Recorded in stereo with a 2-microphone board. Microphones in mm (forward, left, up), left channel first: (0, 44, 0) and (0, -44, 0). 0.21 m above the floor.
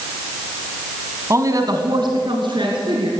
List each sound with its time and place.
1.3 s a woman speaking: 30° right (ahead or behind), 1.3 m; by 3.1 s 70° right (ahead or behind), 3 m